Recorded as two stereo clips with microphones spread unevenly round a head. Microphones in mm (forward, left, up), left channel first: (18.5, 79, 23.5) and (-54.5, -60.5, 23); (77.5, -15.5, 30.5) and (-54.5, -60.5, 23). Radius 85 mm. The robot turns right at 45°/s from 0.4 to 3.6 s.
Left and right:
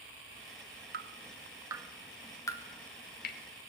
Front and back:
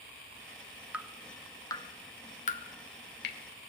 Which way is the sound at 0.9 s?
80° right.